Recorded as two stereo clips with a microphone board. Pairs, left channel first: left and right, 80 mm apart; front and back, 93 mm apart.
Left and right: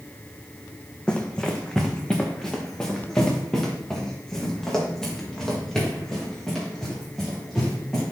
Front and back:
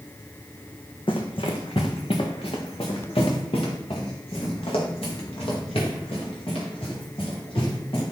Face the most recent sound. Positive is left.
turn(degrees=5)